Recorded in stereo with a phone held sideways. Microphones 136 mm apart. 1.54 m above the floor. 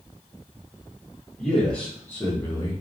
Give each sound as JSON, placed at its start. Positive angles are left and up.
{"t": 1.4, "sound": "a man speaking", "side_deg": 5, "distance_m": 1.3}